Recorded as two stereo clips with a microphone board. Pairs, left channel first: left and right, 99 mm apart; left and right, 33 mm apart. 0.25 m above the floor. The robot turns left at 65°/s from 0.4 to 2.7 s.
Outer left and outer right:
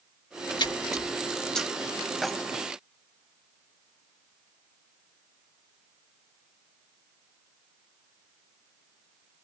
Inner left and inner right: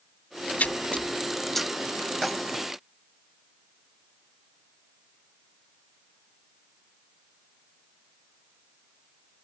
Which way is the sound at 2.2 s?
Centre (ahead or behind).